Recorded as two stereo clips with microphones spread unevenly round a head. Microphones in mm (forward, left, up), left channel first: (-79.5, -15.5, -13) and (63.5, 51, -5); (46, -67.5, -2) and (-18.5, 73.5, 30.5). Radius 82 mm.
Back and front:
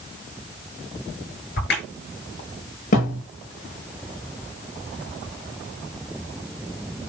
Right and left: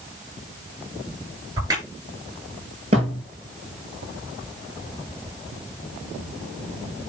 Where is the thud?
165° left, 7.5 m.